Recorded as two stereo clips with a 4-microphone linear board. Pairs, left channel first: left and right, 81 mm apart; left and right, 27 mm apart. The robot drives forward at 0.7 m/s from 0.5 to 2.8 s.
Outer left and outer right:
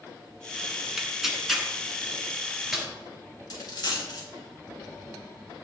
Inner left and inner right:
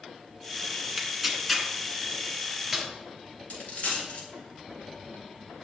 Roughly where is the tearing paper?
Centre.